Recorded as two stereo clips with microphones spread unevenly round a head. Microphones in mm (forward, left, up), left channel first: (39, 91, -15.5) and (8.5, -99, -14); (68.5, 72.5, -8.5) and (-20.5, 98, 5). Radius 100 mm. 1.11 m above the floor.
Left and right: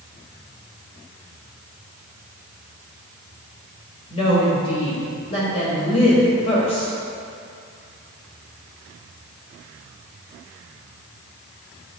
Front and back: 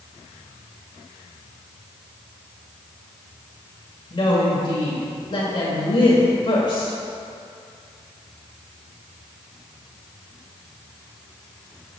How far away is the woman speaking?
About 1.5 m.